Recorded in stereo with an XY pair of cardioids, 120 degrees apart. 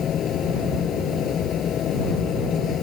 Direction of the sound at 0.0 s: 50° left.